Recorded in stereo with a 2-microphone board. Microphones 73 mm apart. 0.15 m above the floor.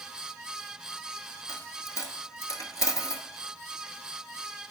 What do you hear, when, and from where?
1.5 s a dropped coin: 55° left (ahead or behind), 0.8 m